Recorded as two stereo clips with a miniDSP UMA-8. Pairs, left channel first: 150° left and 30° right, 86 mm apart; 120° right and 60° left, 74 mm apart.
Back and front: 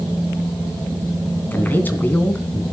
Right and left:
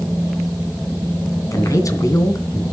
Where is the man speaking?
145° right, 2.5 m.